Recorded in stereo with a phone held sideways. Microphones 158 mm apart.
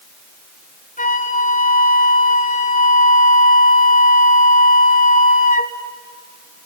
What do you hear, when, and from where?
1.0 s a flute: 55° left (ahead or behind), 2 m